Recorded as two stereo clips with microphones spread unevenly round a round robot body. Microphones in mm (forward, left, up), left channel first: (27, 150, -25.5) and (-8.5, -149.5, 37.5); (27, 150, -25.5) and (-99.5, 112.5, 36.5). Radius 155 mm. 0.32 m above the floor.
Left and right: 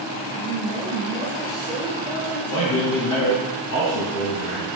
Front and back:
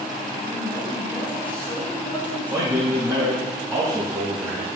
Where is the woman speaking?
75° left, 4.5 m; by 3.5 s 90° left, 2.5 m.